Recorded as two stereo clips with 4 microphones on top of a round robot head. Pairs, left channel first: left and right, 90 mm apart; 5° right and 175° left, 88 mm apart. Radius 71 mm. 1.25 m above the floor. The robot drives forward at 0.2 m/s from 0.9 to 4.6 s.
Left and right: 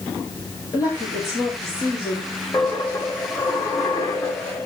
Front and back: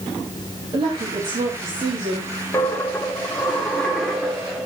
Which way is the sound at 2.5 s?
40° left.